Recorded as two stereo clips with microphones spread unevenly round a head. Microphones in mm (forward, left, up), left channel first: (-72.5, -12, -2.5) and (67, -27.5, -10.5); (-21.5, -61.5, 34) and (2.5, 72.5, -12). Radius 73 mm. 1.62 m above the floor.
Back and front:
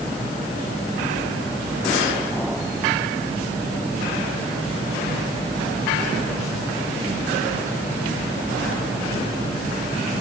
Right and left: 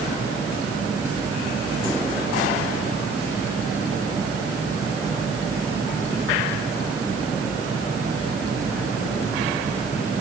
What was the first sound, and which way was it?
Only background noise.